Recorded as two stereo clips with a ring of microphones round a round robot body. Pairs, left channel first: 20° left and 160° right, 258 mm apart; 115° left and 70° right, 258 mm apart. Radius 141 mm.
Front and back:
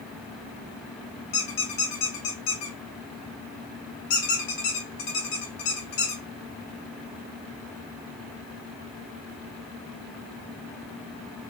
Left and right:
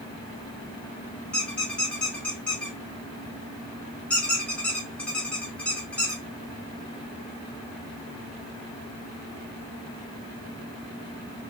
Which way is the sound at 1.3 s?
25° left.